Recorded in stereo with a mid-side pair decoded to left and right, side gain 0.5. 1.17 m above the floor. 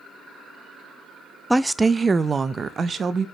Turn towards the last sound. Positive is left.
turn(degrees=-40)